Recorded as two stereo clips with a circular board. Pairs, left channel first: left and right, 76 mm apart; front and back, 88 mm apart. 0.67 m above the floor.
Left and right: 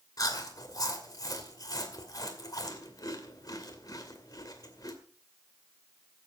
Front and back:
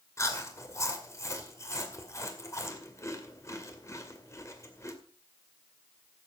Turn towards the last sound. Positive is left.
turn(degrees=55)